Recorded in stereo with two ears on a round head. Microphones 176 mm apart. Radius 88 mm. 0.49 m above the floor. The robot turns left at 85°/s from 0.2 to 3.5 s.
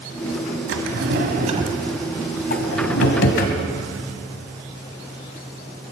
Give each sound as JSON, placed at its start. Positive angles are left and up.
{"t": 0.7, "sound": "a drawer", "side_deg": -70, "distance_m": 1.6}